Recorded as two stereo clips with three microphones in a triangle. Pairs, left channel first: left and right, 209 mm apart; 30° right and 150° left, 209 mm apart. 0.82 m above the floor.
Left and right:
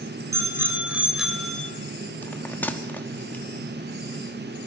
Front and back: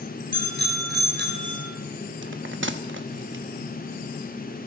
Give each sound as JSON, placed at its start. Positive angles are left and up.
{"t": 0.3, "sound": "a bicycle bell", "azimuth_deg": -165, "distance_m": 2.5}
{"t": 2.2, "sound": "a bell", "azimuth_deg": 170, "distance_m": 0.9}